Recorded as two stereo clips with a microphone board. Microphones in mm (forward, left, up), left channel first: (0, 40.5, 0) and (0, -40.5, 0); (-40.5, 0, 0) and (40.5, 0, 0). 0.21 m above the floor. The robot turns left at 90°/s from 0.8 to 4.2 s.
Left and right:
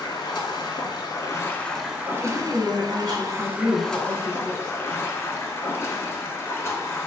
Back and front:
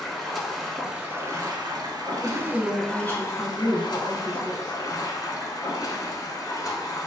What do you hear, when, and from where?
0.0 s running water: 95° left, 0.7 m; by 7.1 s 150° left, 0.7 m
2.1 s a woman speaking: 100° right, 1.1 m; by 4.8 s 75° left, 1.1 m